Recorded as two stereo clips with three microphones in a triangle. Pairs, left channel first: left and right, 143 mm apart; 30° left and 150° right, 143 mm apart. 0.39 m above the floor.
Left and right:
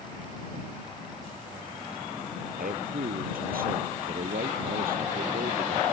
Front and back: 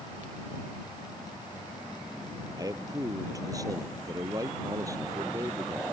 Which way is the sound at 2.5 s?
85° right.